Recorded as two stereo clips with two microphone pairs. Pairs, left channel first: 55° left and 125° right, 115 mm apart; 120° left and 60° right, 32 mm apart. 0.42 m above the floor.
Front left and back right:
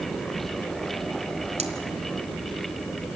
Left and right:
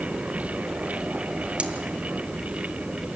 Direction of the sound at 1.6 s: 110° right.